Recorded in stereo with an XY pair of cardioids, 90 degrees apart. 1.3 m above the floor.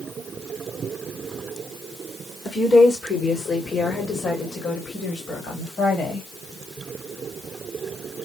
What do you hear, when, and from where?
2.5 s a woman speaking: 50° left, 3 m; by 6.3 s 55° left, 5 m